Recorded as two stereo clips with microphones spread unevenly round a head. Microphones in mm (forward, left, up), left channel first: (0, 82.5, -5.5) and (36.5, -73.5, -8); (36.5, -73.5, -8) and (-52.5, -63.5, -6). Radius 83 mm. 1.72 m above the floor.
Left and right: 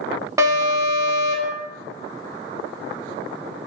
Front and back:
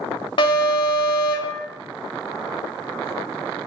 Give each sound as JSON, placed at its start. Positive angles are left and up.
{"t": 0.4, "sound": "an alarm", "azimuth_deg": -10, "distance_m": 0.6}